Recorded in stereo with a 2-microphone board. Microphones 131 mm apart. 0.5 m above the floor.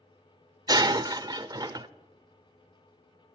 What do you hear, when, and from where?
0.7 s breaking glass: 30° right (ahead or behind), 0.6 m